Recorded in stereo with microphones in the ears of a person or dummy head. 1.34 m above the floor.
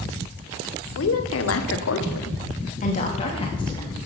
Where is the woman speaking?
70° left (ahead or behind), 1.0 m; by 4.0 s 20° left (ahead or behind), 1.5 m.